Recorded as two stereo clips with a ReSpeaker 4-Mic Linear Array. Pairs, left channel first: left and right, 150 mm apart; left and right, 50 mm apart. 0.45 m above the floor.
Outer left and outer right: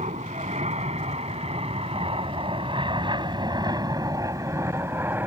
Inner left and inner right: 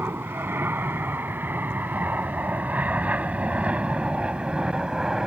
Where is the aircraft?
50° right (ahead or behind); by 5.3 s 10° right (ahead or behind).